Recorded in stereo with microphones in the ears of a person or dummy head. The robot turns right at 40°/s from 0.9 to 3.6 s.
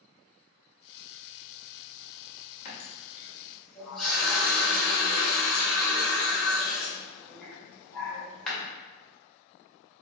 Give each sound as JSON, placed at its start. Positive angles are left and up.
{"t": 2.6, "sound": "a running tap", "azimuth_deg": 140, "distance_m": 1.5}